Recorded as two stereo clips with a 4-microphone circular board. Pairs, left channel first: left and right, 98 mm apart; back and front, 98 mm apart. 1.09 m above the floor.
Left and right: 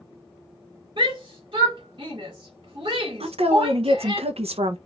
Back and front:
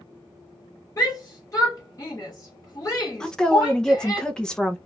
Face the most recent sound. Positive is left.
turn(degrees=-95)